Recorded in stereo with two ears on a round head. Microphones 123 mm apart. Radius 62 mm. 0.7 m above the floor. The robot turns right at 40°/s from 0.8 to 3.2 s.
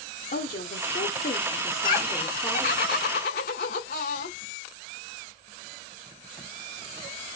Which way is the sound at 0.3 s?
120° left.